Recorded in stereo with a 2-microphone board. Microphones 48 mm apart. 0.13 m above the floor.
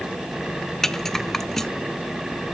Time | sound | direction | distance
0.8 | a rattle | 5° left (ahead or behind) | 0.6 m